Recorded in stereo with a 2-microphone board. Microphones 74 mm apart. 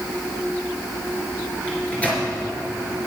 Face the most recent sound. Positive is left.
turn(degrees=20)  # may be behind; listen again after turning